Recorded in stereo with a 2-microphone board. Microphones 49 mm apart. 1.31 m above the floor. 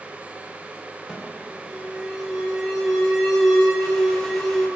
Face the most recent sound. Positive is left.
turn(degrees=5)  # may be behind; listen again after turning